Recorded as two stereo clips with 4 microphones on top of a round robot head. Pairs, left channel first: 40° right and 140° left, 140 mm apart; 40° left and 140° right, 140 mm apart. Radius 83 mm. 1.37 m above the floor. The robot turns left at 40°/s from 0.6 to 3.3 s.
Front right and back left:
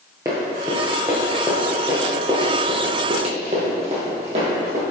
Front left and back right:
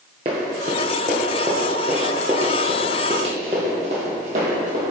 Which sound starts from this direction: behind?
Running footsteps, at 0.2 s.